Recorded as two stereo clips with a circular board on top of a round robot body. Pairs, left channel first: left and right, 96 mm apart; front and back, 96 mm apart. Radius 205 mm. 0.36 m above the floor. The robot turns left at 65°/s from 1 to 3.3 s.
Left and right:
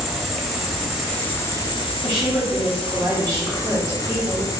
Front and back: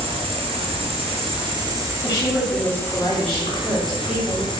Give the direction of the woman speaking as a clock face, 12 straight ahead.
12 o'clock.